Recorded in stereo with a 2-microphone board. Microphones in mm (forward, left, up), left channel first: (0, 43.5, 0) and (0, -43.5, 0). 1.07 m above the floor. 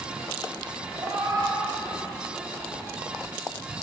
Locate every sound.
0.9 s a cat meowing: 55° right (ahead or behind), 2 m; by 2.9 s 25° right (ahead or behind), 1.8 m